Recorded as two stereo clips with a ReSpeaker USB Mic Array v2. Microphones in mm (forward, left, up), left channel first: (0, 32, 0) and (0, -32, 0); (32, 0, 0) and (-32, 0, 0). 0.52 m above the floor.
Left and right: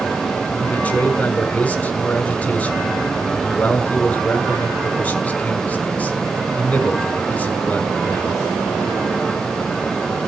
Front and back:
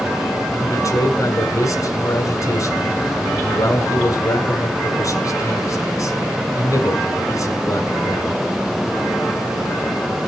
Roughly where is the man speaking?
Ahead left.